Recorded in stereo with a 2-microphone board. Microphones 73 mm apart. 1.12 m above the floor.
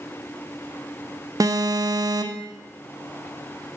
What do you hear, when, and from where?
1.4 s an alarm: 55° right (ahead or behind), 0.6 m